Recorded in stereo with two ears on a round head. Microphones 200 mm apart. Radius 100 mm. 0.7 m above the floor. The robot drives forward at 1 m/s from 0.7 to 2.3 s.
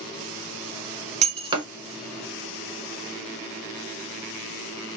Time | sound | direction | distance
1.2 | breaking glass | 30° right (ahead or behind) | 0.7 m